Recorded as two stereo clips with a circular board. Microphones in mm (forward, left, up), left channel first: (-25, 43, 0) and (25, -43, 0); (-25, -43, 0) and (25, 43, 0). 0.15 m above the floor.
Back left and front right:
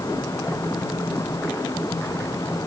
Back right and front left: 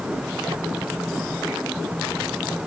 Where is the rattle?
No rattle in this recording.